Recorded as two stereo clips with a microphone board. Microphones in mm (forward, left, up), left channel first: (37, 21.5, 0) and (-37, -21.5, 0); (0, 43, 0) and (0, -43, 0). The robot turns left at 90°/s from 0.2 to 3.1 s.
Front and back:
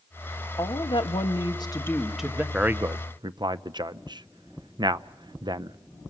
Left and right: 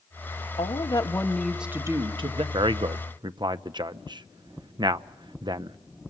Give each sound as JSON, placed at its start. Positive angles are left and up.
{"t": 0.6, "sound": "a woman speaking", "azimuth_deg": 85, "distance_m": 1.4}
{"t": 2.5, "sound": "a man speaking", "azimuth_deg": -70, "distance_m": 0.6}